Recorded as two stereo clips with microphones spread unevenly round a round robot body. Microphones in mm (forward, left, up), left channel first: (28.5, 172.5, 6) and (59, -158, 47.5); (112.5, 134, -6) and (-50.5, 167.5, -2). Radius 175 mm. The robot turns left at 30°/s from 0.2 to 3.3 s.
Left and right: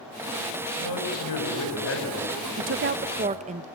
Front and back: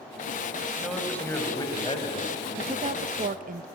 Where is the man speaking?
80° left, 6 m; by 3.5 s 5° left, 6 m.